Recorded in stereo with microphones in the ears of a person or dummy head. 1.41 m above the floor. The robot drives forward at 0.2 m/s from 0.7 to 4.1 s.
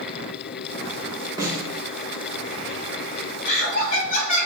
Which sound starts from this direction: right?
A snare drum, at 1.4 s.